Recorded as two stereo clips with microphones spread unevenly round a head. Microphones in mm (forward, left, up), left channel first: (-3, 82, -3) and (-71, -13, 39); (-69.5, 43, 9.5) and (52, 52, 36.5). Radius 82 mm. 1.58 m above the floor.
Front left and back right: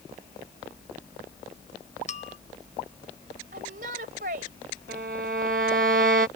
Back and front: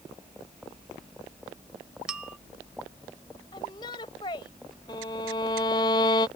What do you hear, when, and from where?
2.1 s a bell: 85° left
3.5 s a shout: 110° right
4.9 s a violin: 110° right